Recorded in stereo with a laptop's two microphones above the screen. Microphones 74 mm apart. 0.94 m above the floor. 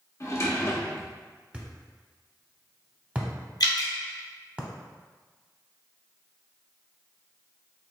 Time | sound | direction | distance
0.2 | a drawer | 45° left (ahead or behind) | 0.7 m
1.5 | a thud | 20° right (ahead or behind) | 0.8 m
3.6 | dripping | 65° left (ahead or behind) | 0.8 m